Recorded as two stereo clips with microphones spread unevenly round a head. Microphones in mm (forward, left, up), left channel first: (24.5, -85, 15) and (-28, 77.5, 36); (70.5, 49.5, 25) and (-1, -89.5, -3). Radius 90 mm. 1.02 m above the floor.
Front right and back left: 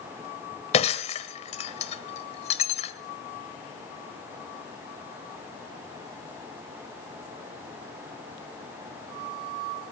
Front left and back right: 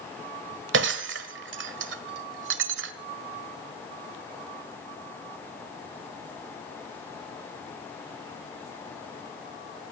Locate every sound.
0.7 s breaking glass: 125° right, 1.3 m